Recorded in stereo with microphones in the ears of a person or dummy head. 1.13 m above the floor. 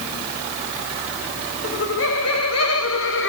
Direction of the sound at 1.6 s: 60° left (ahead or behind).